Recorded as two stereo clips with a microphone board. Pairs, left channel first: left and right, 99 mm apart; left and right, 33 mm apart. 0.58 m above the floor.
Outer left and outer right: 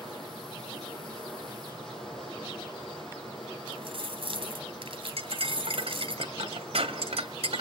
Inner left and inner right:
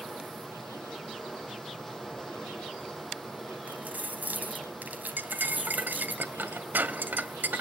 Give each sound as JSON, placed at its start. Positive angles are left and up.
{"t": 0.0, "sound": "running water", "side_deg": 0, "distance_m": 6.5}
{"t": 3.7, "sound": "keys jangling", "side_deg": -65, "distance_m": 2.5}
{"t": 5.2, "sound": "cutlery clinking", "side_deg": -80, "distance_m": 1.8}